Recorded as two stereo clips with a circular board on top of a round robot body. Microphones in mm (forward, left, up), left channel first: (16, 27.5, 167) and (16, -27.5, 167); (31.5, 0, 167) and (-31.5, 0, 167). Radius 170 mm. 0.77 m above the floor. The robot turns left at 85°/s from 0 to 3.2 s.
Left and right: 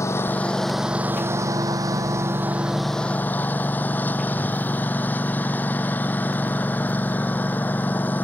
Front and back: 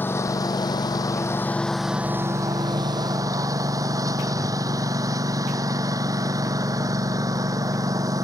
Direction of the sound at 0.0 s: 60° left.